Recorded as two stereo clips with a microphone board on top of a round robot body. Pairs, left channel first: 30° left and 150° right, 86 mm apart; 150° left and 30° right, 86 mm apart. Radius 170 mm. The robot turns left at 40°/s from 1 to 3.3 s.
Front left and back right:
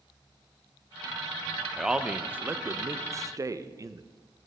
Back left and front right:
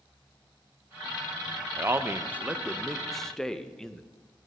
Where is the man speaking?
70° right, 0.6 m; by 4.0 s 130° right, 0.6 m.